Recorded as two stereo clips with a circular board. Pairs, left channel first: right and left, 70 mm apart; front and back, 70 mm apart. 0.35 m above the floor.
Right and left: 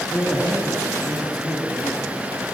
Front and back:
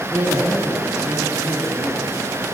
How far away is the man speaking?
About 2.0 m.